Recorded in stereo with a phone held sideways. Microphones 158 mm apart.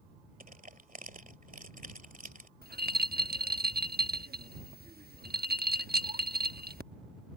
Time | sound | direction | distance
0.4 | crushing | 60° right (ahead or behind) | ?
2.6 | a rattle | 80° right | ?